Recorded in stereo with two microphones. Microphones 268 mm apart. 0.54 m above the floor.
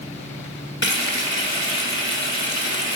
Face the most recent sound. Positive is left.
turn(degrees=45)  # may be behind; listen again after turning